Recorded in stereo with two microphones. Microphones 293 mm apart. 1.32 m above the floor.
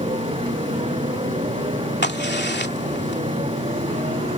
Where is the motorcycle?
20° right (ahead or behind).